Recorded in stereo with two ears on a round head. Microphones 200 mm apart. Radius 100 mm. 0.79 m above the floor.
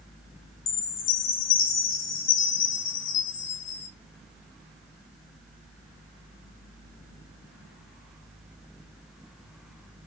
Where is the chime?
60° left (ahead or behind), 0.5 m.